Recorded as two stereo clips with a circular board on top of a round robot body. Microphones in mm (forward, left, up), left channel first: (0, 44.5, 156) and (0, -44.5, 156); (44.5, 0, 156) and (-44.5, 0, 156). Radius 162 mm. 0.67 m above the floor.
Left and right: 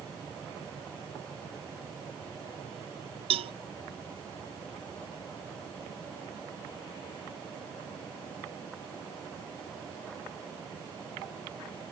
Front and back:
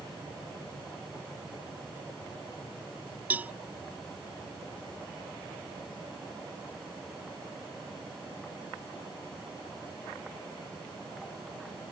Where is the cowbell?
105° right.